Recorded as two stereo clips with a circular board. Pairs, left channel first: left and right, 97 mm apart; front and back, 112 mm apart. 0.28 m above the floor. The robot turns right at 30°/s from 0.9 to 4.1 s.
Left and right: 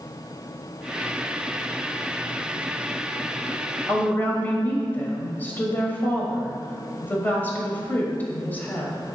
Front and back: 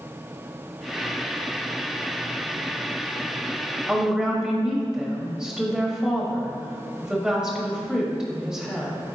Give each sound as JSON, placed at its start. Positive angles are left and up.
{"t": 3.9, "sound": "a woman speaking", "azimuth_deg": 105, "distance_m": 1.3}